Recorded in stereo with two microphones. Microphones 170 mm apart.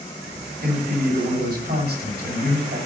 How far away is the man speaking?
About 7 m.